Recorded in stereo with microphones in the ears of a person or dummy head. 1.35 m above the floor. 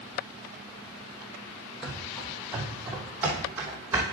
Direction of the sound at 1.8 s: 5° right (ahead or behind).